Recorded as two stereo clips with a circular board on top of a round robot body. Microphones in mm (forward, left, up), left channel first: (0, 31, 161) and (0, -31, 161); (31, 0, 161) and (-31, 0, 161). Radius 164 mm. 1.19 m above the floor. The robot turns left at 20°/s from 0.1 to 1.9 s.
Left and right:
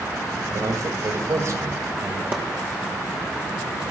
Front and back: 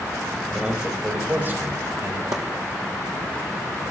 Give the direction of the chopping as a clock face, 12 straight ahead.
5 o'clock.